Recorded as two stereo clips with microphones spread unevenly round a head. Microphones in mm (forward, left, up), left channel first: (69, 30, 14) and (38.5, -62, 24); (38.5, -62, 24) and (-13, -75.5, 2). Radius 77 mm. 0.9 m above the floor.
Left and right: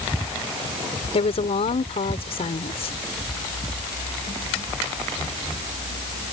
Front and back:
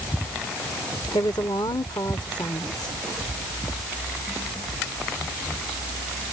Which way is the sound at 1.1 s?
60° left.